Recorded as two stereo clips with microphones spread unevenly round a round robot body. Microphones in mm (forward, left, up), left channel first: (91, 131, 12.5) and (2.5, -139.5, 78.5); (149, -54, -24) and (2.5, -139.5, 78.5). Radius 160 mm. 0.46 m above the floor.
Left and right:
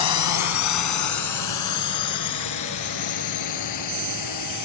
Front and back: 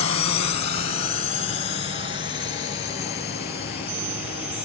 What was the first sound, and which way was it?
A drone, 75° left.